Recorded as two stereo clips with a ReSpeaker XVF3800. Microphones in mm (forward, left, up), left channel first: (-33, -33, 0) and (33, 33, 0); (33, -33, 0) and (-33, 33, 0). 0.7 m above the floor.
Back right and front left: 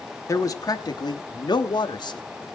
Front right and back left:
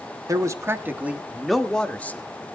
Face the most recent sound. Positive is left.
turn(degrees=-110)